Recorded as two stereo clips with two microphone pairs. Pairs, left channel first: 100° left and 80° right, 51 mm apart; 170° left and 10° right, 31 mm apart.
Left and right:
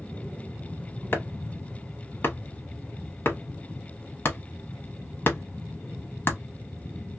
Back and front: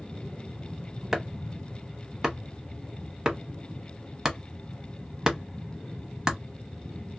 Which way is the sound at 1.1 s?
55° left.